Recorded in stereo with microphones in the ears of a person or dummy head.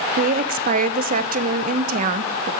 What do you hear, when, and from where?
0.2 s a woman speaking: 45° right (ahead or behind), 0.9 m